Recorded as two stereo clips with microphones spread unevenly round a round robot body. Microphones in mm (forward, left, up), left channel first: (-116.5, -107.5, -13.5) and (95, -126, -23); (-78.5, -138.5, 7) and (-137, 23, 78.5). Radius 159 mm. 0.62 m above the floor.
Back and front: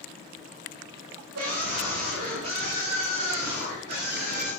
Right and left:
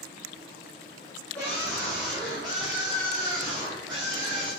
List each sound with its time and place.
1.4 s a scream: 5° left, 3 m; by 4.5 s 30° left, 4.5 m